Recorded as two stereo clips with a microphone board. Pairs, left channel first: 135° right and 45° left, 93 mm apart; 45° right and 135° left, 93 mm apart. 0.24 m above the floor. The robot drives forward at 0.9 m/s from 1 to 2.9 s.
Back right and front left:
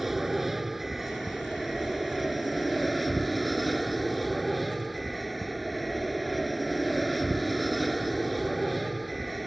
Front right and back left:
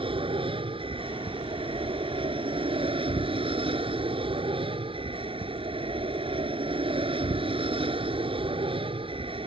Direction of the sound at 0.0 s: 130° left.